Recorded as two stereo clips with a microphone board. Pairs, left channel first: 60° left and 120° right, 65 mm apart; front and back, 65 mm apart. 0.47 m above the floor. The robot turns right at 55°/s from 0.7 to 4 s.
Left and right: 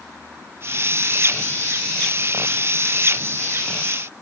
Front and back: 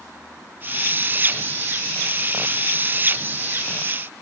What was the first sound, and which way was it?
Only background noise.